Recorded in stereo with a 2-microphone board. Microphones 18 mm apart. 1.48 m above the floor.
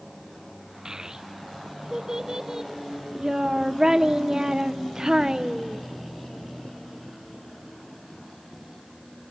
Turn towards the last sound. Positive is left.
turn(degrees=-40)  # may be behind; listen again after turning